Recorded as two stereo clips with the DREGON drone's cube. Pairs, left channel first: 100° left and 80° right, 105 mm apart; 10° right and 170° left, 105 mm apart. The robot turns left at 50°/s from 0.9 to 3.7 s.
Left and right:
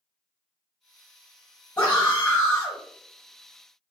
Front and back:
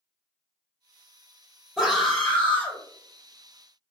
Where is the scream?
85° left, 1.1 m; by 2.8 s 30° left, 1.1 m.